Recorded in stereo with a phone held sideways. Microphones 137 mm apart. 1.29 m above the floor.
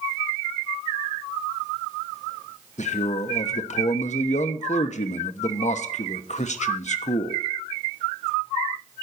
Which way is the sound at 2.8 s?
60° left (ahead or behind).